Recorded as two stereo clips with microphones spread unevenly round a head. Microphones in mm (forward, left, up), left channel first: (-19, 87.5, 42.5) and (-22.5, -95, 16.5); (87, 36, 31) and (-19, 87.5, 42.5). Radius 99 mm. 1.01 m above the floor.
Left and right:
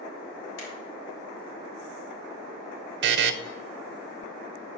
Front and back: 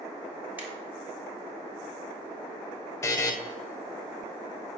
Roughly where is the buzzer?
Right.